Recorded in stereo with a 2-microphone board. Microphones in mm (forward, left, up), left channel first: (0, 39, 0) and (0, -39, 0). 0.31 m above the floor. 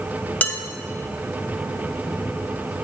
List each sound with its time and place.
0.4 s dishes clattering: 20° left (ahead or behind), 1.1 m